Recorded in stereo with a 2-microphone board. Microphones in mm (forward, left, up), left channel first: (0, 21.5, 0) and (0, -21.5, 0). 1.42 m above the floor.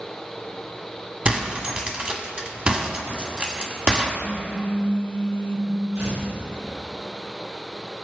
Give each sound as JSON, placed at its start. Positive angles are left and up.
{"t": 1.2, "sound": "breaking glass", "side_deg": -30, "distance_m": 1.4}
{"t": 4.2, "sound": "a phone buzzing", "side_deg": 40, "distance_m": 2.5}
{"t": 6.0, "sound": "tearing paper", "side_deg": -85, "distance_m": 4.0}